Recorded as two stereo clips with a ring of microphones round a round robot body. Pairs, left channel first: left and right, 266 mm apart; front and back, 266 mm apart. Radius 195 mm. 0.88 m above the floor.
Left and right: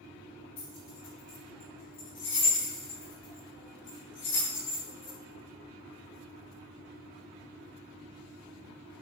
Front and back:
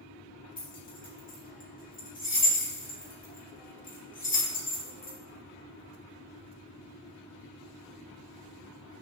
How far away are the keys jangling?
About 5 m.